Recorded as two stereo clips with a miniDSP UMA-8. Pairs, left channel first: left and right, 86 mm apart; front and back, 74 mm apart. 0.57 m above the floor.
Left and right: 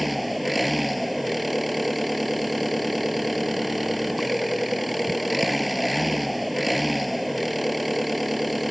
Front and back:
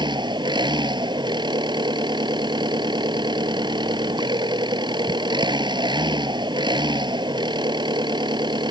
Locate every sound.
0.0 s an engine running: straight behind